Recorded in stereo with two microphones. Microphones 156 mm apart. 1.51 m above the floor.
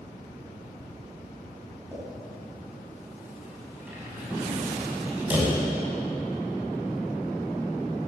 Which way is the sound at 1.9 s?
10° right (ahead or behind).